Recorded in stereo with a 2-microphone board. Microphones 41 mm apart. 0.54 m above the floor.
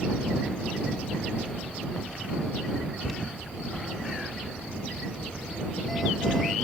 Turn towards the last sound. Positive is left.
turn(degrees=5)  # may be behind; listen again after turning